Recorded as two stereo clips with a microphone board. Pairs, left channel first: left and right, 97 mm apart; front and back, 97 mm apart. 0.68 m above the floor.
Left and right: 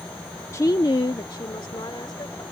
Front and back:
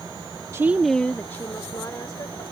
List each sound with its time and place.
0.5 s a woman speaking: 135° left; by 2.4 s 50° left